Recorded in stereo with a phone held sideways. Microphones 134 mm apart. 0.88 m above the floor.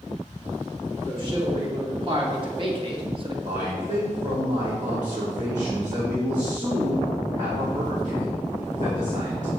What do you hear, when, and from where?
1.1 s a man speaking: 40° right (ahead or behind), 2.5 m
3.5 s a man speaking: 60° right (ahead or behind), 1.7 m